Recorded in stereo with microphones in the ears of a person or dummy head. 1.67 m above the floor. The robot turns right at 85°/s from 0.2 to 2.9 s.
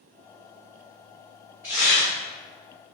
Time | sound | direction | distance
1.6 | tearing paper | 15° right | 0.8 m